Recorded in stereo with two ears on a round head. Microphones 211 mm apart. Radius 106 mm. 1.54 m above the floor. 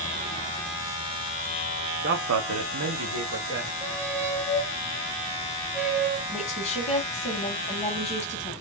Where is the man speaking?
40° right (ahead or behind), 0.5 m; by 3.7 s 50° right (ahead or behind), 1.0 m.